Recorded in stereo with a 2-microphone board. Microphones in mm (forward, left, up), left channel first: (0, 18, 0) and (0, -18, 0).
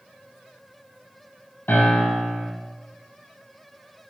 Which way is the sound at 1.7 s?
85° left.